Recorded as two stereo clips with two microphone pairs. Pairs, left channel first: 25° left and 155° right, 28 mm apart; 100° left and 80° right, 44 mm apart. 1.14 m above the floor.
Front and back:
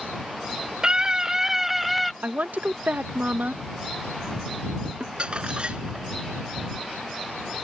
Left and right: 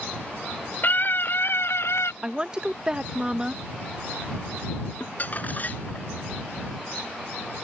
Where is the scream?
145° left; by 2.1 s 110° left.